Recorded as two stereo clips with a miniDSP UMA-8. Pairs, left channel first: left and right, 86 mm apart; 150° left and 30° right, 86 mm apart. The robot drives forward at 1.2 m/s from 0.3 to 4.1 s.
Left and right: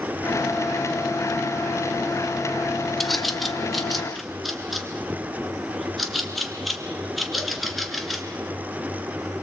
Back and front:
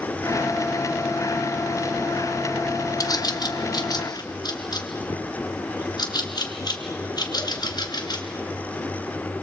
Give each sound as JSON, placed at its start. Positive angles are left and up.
{"t": 3.0, "sound": "a bird", "azimuth_deg": 180, "distance_m": 1.0}